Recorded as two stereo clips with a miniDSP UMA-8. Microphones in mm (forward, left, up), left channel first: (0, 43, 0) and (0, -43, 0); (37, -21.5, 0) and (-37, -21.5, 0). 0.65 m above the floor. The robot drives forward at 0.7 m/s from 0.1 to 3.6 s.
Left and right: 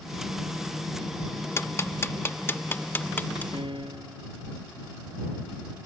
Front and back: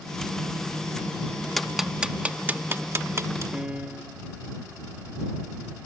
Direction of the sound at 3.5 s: 105° right.